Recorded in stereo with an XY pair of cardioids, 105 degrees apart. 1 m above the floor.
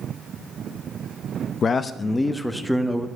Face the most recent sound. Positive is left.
turn(degrees=-5)